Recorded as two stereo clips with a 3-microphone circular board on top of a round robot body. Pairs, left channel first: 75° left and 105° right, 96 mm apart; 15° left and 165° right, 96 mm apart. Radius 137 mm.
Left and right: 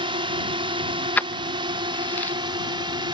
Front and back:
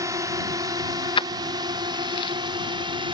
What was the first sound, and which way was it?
A drone, 115° right.